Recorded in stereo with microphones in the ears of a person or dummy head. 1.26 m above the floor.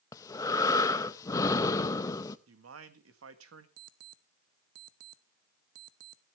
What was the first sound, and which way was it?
Breathing, 15° left (ahead or behind).